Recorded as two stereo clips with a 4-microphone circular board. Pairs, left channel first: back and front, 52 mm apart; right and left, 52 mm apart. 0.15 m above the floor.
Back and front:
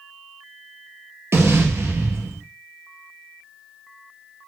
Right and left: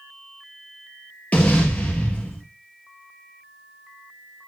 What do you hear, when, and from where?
1.3 s an explosion: 30° right, 1.9 m